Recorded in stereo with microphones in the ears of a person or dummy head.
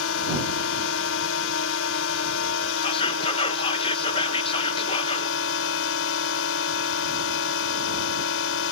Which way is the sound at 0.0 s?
80° left.